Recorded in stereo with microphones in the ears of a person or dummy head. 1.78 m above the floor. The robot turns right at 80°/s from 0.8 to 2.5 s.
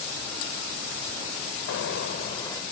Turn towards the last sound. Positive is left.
turn(degrees=160)